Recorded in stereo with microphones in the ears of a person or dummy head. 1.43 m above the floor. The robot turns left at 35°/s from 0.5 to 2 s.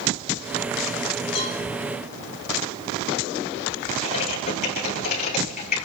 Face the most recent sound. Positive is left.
turn(degrees=50)  # may be behind; listen again after turning